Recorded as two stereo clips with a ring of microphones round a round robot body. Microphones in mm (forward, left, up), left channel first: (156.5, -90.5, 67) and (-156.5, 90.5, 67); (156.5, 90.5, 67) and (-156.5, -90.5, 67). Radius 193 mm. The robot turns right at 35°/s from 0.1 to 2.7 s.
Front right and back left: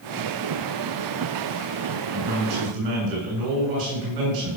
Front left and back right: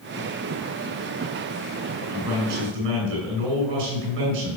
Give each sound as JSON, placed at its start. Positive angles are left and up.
{"t": 2.1, "sound": "a man speaking", "azimuth_deg": 160, "distance_m": 7.5}